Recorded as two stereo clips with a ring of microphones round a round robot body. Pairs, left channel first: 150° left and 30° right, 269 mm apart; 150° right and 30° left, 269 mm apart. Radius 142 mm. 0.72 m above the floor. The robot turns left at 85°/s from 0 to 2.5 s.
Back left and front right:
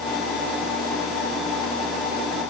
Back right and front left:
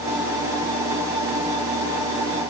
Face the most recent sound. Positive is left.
No sound to turn to.